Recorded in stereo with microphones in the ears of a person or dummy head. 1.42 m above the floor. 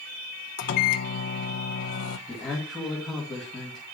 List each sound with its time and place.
0.6 s a microwave: 45° left (ahead or behind), 0.6 m
2.3 s a man speaking: centre (ahead or behind), 2 m